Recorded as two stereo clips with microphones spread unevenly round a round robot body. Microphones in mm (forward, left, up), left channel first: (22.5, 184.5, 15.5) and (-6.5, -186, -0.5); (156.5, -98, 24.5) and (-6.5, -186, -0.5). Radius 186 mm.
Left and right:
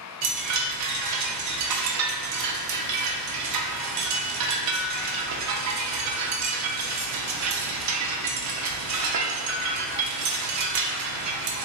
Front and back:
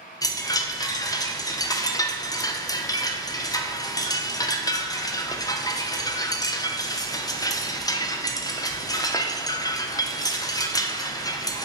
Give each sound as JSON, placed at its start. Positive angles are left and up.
{"t": 0.2, "sound": "a chime", "azimuth_deg": -50, "distance_m": 0.5}